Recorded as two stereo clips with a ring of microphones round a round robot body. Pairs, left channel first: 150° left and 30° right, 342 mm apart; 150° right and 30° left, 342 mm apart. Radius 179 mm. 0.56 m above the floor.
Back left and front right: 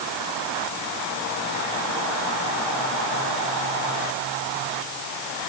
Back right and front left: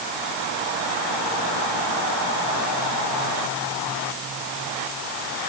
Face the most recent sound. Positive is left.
No sound to turn to.